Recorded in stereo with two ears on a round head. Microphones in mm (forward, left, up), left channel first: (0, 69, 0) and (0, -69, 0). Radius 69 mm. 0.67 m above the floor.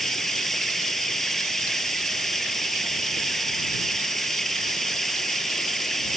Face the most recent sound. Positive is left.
turn(degrees=0)  # may be behind; listen again after turning